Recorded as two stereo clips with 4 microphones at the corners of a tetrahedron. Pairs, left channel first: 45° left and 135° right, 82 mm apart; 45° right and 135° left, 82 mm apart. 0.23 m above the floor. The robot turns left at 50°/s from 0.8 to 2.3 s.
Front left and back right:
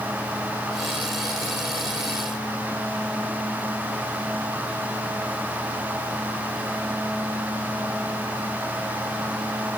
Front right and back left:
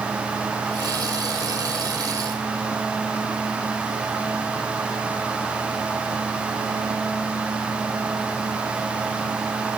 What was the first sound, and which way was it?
Only background noise.